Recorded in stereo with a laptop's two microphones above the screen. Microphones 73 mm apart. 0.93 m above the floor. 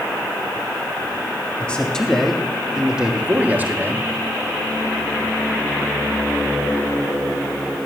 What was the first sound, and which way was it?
A man speaking, 15° left (ahead or behind).